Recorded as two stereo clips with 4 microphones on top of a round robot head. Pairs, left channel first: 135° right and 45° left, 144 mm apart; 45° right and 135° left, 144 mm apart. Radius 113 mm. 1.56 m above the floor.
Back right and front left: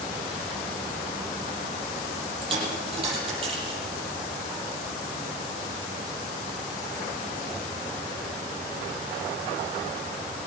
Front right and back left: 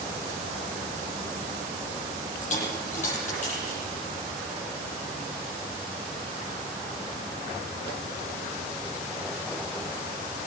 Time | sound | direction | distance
2.4 | a dropped coin | 10° right | 8 m